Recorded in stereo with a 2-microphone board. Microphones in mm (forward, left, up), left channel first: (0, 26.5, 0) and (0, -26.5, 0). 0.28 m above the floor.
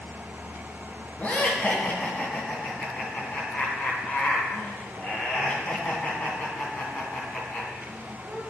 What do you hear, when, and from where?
1.2 s laughter: 25° left (ahead or behind), 2.5 m